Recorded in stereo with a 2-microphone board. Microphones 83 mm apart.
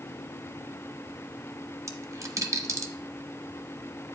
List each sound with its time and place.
1.9 s a dropped coin: 40° right (ahead or behind), 0.8 m